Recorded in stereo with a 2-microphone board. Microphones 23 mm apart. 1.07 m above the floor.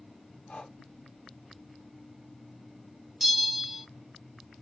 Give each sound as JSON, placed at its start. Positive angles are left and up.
{"t": 0.5, "sound": "breathing", "side_deg": 60, "distance_m": 0.8}
{"t": 3.2, "sound": "a bell", "side_deg": -15, "distance_m": 1.1}